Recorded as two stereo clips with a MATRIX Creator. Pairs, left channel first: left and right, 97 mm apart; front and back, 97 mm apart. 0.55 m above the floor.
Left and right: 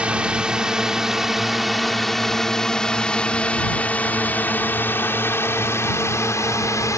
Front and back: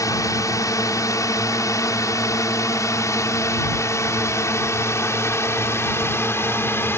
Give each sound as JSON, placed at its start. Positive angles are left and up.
{"t": 0.0, "sound": "a drone", "azimuth_deg": -20}